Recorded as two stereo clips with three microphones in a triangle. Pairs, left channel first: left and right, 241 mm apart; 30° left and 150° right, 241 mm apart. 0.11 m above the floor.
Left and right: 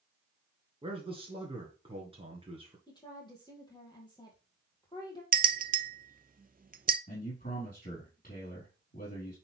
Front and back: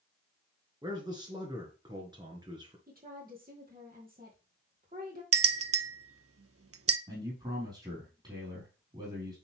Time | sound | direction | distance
0.8 | a man speaking | 105° right | 1.5 m
2.9 | a woman speaking | 160° left | 3 m
5.3 | a bell | 145° right | 0.6 m
7.1 | a man speaking | 145° left | 4 m